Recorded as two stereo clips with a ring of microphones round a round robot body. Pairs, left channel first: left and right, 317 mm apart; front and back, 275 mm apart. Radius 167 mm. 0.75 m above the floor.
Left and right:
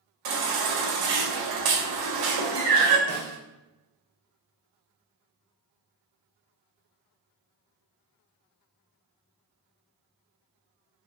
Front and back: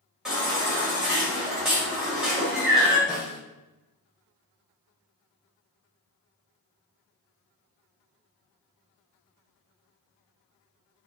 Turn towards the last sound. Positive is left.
turn(degrees=-90)